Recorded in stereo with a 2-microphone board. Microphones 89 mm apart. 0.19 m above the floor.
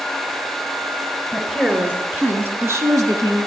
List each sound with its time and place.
1.3 s a woman speaking: 5° right (ahead or behind), 3 m; by 3.5 s 45° right (ahead or behind), 1.7 m